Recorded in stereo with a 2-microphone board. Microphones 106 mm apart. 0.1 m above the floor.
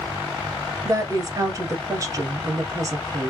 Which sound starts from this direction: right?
A woman speaking, at 0.8 s.